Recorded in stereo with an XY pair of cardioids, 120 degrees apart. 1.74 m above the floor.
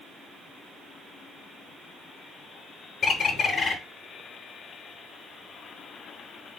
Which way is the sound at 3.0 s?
35° left.